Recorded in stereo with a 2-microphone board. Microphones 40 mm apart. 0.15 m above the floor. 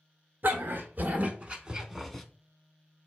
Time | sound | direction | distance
0.4 | a dog barking | 60° right (ahead or behind) | 0.9 m